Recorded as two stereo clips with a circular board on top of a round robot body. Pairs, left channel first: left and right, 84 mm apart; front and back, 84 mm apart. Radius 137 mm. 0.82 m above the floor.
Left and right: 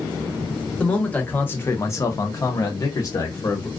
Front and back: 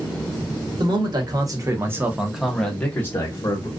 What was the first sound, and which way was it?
A man speaking, 165° left.